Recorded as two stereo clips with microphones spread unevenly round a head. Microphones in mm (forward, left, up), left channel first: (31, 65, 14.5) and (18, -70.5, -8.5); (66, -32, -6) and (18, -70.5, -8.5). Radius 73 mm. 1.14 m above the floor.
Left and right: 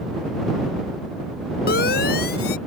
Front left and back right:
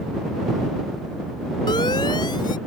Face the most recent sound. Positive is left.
turn(degrees=75)